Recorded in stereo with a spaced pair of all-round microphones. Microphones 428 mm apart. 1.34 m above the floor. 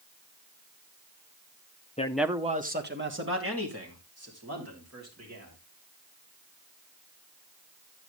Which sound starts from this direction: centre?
A man speaking, at 2.0 s.